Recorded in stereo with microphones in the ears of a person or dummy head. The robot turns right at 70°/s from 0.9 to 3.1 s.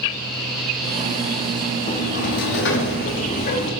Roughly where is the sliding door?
Ahead left.